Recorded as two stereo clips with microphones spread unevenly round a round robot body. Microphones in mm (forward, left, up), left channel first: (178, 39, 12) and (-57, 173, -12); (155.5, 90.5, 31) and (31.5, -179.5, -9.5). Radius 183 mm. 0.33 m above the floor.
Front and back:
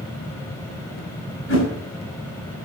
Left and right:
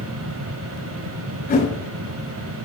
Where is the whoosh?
5° left, 6 m.